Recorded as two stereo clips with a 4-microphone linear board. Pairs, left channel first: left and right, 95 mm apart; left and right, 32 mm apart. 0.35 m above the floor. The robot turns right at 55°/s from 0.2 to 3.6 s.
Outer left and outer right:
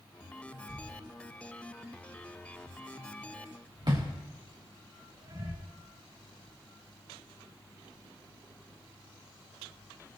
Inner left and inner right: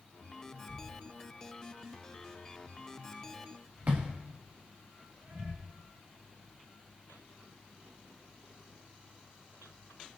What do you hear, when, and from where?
0.7 s a thud: 70° left (ahead or behind), 6 m; by 5.5 s 50° right (ahead or behind), 6 m